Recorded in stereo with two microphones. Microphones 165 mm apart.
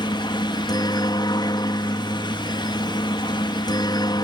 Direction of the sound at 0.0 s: 25° left (ahead or behind).